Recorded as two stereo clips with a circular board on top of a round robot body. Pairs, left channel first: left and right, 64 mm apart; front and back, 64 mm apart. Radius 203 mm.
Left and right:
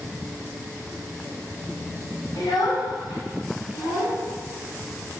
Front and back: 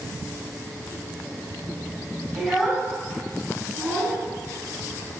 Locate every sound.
2.4 s a child speaking: 95° left, 2.5 m; by 4.2 s 80° left, 4.5 m